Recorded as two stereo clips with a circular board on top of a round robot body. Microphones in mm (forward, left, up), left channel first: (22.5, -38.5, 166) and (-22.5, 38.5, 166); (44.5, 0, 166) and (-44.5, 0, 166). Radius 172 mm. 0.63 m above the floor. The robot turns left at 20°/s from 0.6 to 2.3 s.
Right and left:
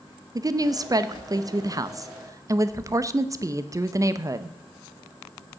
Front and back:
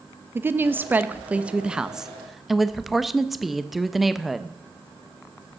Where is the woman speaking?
130° left, 0.9 m; by 4.6 s 95° left, 0.9 m.